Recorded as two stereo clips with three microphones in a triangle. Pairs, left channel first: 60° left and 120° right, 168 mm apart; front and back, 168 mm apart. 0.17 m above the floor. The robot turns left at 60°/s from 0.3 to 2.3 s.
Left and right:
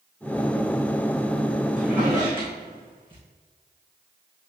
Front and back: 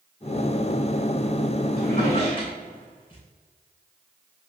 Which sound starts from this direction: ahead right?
A drawer, at 1.8 s.